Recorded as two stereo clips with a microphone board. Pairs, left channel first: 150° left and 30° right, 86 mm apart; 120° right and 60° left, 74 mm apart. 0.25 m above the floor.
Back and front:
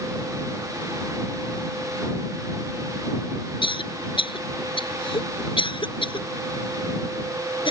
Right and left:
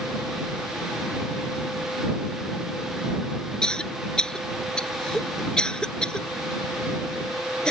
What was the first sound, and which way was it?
A cough, 160° left.